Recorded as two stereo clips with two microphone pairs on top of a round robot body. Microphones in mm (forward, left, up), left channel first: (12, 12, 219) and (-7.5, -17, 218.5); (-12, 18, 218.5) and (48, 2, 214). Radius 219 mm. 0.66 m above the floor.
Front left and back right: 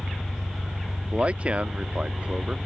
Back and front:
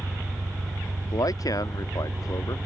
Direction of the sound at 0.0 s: 45° right.